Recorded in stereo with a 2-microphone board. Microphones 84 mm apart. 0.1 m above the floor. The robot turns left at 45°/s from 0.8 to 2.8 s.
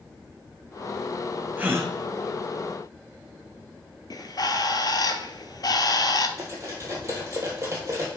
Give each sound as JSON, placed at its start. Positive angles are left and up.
{"t": 1.6, "sound": "a gasp", "side_deg": -20, "distance_m": 1.0}
{"t": 4.1, "sound": "a bird", "side_deg": 55, "distance_m": 0.7}
{"t": 6.4, "sound": "cutlery clinking", "side_deg": -40, "distance_m": 2.0}